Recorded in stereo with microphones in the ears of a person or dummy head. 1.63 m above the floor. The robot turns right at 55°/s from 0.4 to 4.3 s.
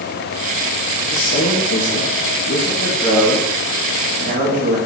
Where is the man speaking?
55° left, 2.0 m; by 4.8 s 125° right, 2.0 m.